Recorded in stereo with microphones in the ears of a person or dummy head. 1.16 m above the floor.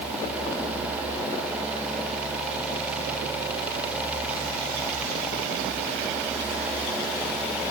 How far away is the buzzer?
I don't hear a buzzer.